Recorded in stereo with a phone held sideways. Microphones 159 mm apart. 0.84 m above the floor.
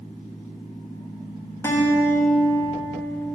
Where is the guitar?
15° left (ahead or behind), 0.7 m.